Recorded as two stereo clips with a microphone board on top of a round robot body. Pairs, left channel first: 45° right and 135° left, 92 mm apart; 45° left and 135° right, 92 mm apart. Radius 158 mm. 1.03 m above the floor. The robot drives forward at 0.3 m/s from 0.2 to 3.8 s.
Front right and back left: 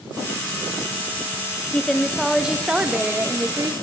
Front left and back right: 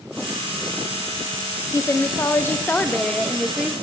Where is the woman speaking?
30° left, 0.8 m; by 3.7 s 145° left, 0.7 m.